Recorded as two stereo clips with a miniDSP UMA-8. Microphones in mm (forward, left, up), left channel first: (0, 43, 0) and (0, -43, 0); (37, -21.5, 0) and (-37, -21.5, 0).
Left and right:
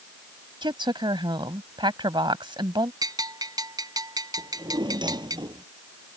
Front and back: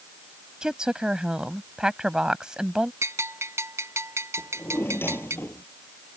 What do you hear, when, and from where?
0.6 s a woman speaking: 100° right
3.0 s a bell: 130° right
4.4 s a drawer: 60° right